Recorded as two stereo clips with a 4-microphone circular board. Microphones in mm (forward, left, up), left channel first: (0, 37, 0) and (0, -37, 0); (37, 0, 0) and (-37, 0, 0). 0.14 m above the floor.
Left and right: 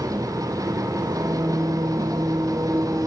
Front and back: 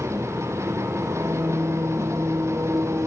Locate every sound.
0.0 s an engine running: 130° right, 2 m